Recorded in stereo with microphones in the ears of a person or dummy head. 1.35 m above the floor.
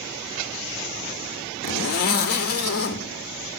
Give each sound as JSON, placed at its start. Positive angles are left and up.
{"t": 1.6, "sound": "a zipper", "side_deg": 50, "distance_m": 1.6}